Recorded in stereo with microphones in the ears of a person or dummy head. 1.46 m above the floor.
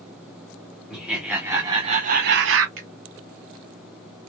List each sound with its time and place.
0.9 s laughter: centre (ahead or behind), 0.9 m; by 2.7 s 75° right (ahead or behind), 0.6 m
2.8 s a finger snap: 45° right (ahead or behind), 1.1 m